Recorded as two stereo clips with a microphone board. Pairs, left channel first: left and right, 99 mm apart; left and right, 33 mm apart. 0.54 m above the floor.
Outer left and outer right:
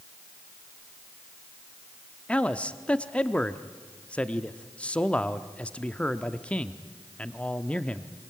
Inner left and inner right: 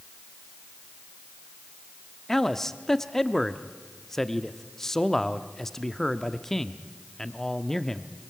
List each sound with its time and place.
2.3 s a man speaking: 10° left (ahead or behind), 0.8 m